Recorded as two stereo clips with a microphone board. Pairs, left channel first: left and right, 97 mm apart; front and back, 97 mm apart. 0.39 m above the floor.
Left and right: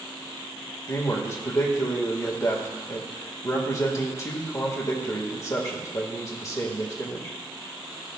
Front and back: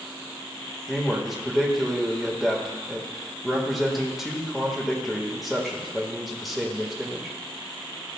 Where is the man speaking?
90° left, 1.5 m.